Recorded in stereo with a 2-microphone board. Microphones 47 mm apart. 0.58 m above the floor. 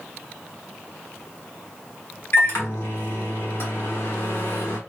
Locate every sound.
2.3 s a microwave: 60° left (ahead or behind), 1.1 m